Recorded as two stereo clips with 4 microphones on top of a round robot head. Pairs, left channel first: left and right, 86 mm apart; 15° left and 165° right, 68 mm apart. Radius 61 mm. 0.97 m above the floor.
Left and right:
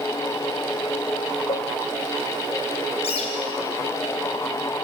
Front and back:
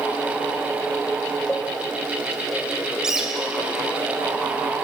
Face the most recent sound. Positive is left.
turn(degrees=110)